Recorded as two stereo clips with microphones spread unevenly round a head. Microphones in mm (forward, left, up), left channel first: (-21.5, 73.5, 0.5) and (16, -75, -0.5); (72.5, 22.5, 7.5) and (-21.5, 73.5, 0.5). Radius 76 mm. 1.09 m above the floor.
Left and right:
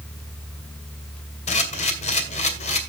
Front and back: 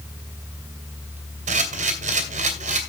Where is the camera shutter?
150° left, 2.5 m.